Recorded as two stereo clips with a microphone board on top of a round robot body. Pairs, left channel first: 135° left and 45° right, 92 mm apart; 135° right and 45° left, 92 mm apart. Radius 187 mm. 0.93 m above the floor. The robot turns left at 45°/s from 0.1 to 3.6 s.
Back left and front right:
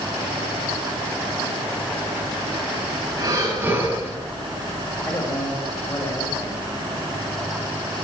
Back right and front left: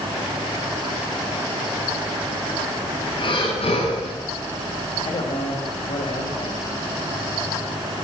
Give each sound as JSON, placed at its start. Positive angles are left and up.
{"t": 3.2, "sound": "breathing", "azimuth_deg": -95, "distance_m": 10.0}
{"t": 5.0, "sound": "a man speaking", "azimuth_deg": -165, "distance_m": 5.5}